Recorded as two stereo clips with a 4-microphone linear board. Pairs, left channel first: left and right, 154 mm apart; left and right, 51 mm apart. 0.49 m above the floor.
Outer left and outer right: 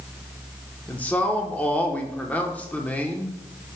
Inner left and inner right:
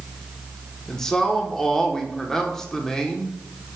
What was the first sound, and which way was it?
A man speaking, 10° left (ahead or behind).